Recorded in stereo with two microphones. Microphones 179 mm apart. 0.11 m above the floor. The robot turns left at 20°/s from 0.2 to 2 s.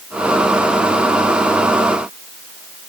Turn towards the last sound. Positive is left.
No sound to turn to.